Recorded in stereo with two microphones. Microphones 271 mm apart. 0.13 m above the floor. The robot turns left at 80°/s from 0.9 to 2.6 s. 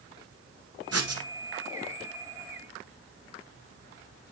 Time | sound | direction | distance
0.9 | writing | 60° right (ahead or behind) | 1.1 m